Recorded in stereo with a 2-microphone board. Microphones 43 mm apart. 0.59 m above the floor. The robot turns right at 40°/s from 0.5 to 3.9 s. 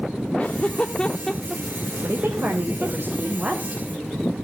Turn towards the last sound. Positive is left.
turn(degrees=-10)